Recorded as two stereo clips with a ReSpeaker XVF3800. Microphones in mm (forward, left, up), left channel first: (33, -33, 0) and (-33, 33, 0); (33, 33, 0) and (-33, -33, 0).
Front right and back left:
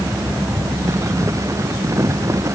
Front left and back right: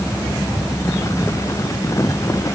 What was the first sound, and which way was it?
Only background noise.